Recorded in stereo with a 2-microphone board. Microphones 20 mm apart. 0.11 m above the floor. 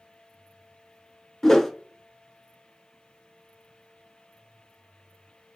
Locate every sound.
1.4 s a whoosh: 25° left (ahead or behind), 0.7 m